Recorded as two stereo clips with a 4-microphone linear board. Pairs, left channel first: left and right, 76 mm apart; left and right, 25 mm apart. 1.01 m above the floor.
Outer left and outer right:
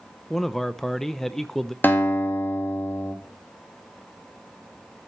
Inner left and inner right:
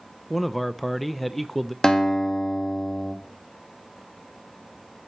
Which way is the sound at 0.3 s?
5° left (ahead or behind).